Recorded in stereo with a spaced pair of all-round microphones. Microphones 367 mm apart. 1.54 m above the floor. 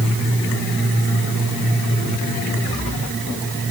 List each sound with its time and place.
Only background noise.